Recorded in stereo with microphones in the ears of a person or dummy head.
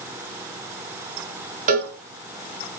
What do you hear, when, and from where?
1.7 s a cowbell: 40° right (ahead or behind), 2.5 m